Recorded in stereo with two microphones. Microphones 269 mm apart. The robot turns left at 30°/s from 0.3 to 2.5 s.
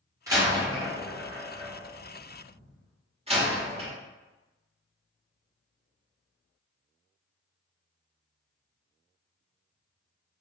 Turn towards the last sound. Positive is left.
turn(degrees=-20)  # may be behind; listen again after turning